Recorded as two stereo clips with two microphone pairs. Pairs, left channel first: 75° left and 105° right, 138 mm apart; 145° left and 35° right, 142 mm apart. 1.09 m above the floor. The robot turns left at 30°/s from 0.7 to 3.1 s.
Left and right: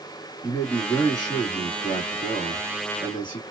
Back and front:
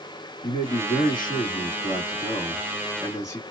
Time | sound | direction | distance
0.4 | a man speaking | 150° left | 1.8 m